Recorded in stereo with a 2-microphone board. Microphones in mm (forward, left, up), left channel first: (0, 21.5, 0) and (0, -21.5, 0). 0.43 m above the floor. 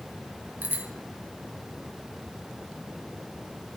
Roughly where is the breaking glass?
No breaking glass in this recording.